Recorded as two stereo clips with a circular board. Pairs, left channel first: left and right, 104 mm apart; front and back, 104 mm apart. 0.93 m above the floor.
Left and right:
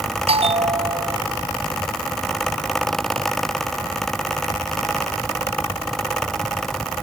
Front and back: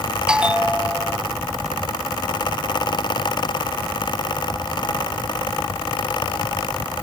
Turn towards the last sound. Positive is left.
turn(degrees=-100)